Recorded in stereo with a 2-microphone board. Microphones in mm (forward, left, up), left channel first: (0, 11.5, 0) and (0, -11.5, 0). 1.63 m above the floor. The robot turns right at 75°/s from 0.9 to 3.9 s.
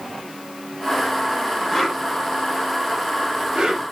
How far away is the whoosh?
About 1.1 m.